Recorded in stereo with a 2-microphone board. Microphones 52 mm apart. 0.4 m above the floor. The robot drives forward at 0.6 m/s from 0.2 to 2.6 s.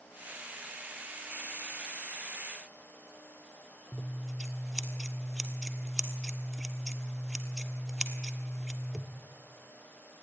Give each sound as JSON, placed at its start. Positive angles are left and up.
{"t": 3.9, "sound": "scissors", "side_deg": -5, "distance_m": 1.5}